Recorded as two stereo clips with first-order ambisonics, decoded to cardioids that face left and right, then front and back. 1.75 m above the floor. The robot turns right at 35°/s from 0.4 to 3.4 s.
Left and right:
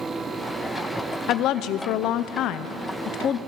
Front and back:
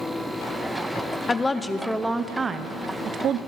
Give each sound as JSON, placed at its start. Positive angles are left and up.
{"t": 1.3, "sound": "a woman speaking", "azimuth_deg": 70, "distance_m": 0.5}